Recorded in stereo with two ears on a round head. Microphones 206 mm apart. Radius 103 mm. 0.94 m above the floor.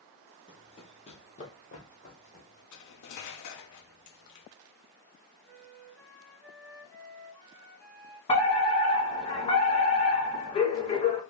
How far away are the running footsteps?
About 1.0 m.